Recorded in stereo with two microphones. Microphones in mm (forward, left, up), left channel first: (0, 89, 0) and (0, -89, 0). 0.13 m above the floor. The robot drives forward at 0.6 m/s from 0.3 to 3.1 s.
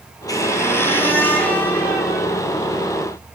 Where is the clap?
No clap in this recording.